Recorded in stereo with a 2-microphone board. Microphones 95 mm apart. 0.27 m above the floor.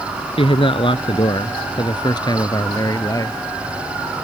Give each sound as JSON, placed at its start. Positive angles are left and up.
{"t": 0.4, "sound": "a man speaking", "side_deg": 70}